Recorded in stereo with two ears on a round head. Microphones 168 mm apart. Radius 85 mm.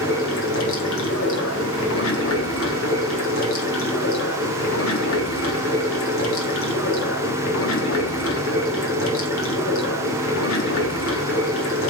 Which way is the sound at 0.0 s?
80° left.